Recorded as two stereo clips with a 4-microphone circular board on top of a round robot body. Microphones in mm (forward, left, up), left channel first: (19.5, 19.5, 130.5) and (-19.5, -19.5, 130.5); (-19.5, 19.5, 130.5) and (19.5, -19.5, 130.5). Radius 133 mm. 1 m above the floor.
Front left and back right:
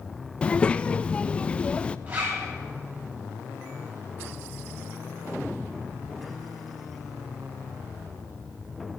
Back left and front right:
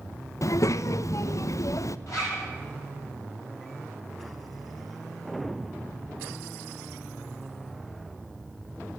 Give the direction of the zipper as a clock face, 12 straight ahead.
7 o'clock.